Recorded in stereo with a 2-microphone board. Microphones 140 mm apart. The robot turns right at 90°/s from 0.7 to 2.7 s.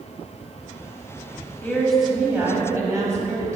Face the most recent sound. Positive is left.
turn(degrees=-20)  # may be behind; listen again after turning